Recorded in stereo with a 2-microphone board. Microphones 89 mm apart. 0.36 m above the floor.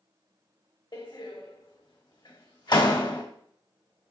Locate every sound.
0.9 s a door slam: 55° left (ahead or behind), 1.2 m